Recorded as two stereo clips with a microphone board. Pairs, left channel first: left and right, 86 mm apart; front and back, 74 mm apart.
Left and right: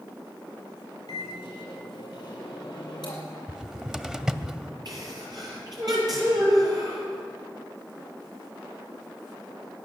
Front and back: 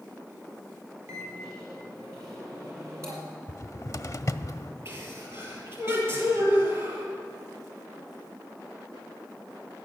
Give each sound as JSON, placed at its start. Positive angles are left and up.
{"t": 1.1, "sound": "a microwave", "azimuth_deg": 125, "distance_m": 5.0}
{"t": 3.5, "sound": "a cupboard door", "azimuth_deg": -10, "distance_m": 0.6}
{"t": 4.8, "sound": "a sneeze", "azimuth_deg": -130, "distance_m": 7.0}